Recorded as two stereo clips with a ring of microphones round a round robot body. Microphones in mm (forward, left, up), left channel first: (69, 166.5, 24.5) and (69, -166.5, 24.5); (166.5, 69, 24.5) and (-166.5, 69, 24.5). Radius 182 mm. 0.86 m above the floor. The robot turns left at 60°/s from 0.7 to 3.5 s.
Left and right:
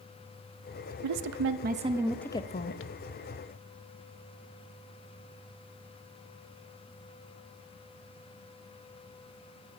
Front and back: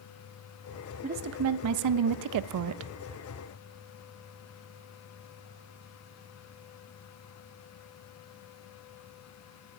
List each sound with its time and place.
1.0 s a woman speaking: 115° right, 0.5 m; by 2.9 s 135° left, 0.5 m